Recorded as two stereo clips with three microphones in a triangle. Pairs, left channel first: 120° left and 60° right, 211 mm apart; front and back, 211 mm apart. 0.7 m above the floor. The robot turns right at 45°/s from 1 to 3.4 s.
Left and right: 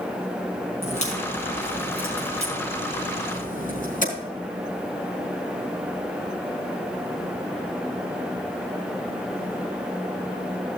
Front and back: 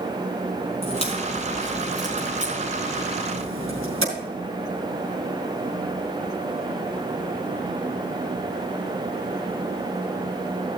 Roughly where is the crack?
Ahead left.